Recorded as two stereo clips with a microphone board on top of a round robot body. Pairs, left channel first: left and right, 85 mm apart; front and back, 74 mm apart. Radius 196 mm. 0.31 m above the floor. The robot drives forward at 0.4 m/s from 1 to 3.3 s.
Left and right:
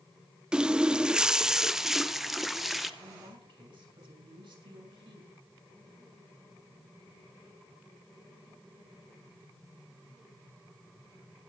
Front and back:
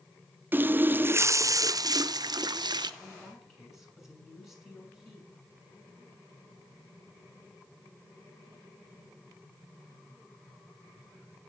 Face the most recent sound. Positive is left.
turn(degrees=-90)